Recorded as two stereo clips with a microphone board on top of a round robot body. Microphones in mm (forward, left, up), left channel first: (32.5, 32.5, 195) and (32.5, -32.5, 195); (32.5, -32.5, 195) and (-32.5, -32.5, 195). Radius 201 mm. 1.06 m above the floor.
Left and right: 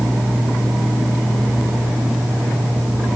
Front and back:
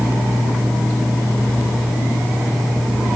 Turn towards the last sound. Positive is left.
No sound to turn to.